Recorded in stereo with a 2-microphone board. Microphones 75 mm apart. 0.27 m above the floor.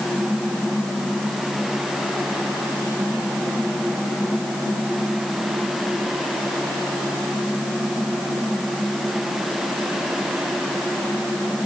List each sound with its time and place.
Only background noise.